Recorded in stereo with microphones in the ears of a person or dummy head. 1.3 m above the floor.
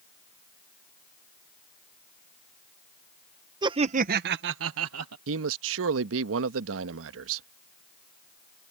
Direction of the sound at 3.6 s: 25° right (ahead or behind).